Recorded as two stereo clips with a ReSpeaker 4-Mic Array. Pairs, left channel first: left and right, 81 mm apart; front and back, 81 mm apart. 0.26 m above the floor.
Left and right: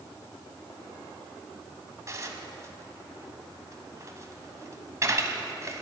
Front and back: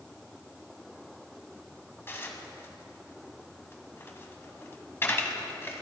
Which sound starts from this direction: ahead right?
Dishes clattering, at 2.1 s.